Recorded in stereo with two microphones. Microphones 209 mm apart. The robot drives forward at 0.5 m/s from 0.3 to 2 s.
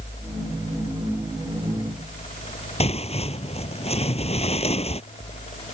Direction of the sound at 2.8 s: 30° left (ahead or behind).